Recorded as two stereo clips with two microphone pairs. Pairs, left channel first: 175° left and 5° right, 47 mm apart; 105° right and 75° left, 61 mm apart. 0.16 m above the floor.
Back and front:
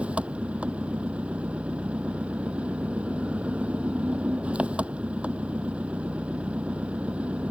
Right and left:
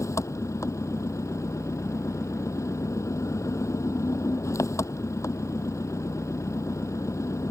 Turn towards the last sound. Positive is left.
turn(degrees=-70)